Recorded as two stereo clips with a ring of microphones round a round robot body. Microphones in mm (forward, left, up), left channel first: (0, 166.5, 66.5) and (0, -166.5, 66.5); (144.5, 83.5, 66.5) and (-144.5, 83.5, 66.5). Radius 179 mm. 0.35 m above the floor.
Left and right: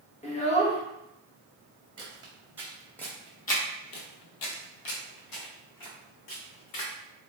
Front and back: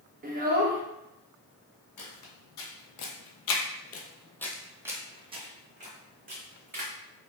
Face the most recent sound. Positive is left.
turn(degrees=125)